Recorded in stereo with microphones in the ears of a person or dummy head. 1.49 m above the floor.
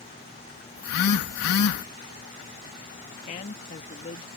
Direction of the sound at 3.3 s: 35° left (ahead or behind).